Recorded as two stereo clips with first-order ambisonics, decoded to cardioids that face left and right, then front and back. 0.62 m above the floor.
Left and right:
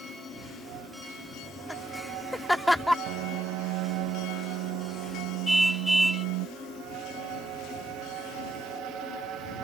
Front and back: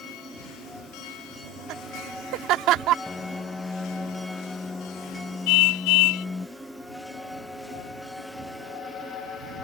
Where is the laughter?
175° left.